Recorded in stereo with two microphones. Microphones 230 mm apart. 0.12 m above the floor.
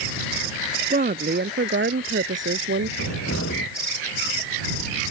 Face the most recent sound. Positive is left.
turn(degrees=80)